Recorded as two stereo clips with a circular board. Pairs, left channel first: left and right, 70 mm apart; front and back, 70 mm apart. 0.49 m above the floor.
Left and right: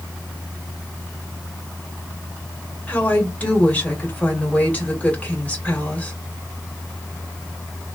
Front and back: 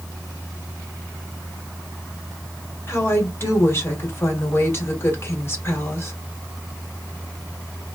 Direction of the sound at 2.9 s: 30° left.